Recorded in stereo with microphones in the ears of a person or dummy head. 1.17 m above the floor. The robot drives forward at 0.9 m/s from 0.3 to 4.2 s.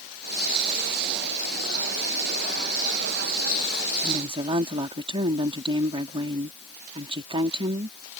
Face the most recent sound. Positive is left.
turn(degrees=-25)  # may be behind; listen again after turning